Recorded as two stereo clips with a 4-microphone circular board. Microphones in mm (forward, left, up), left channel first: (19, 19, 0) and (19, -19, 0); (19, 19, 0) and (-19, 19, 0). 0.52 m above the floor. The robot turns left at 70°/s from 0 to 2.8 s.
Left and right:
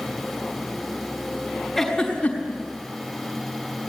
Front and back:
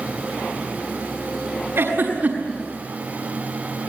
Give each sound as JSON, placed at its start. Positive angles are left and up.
{"t": 1.8, "sound": "a giggle", "azimuth_deg": -175, "distance_m": 5.5}